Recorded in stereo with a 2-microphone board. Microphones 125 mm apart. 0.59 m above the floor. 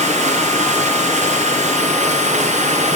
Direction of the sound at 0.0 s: 70° right (ahead or behind).